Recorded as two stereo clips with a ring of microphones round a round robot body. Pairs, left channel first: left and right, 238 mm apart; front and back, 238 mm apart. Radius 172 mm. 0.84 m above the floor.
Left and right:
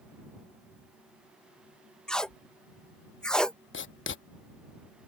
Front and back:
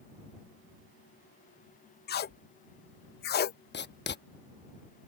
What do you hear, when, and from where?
2.1 s tape being pulled: 5° left
3.7 s writing: 50° left